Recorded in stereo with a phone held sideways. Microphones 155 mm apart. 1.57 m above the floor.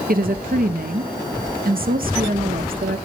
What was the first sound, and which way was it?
A woman speaking, 70° right (ahead or behind).